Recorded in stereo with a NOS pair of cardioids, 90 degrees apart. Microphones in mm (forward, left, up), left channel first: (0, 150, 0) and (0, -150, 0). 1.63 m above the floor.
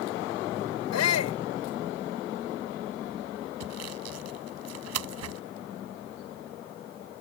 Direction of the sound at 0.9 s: 70° left.